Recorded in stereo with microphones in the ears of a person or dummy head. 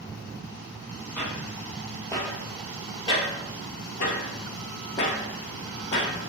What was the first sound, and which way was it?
Footsteps, 5° left (ahead or behind).